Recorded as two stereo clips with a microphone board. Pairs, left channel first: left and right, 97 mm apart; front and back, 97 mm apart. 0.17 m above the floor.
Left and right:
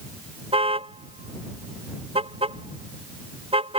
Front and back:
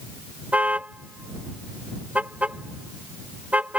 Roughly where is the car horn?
Right.